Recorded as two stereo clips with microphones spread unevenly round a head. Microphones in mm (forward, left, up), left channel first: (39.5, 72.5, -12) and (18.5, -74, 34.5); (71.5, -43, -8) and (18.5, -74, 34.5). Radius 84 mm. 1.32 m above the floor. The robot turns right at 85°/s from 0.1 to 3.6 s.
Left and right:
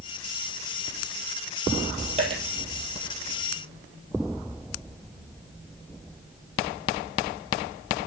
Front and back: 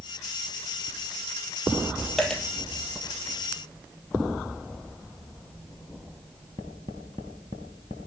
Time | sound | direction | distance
2.2 | a dropped coin | 80° right | 2.5 m